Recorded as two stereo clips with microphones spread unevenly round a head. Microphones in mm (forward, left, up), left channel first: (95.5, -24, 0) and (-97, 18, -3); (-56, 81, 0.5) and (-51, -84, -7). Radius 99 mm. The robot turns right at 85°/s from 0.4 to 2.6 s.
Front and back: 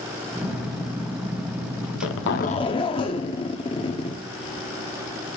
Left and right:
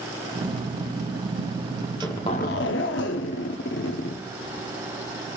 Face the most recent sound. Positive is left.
turn(degrees=55)